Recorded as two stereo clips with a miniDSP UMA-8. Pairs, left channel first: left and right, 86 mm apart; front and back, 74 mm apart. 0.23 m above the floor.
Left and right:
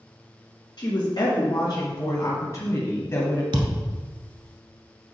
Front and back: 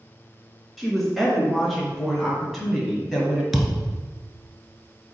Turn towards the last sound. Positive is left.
turn(degrees=-90)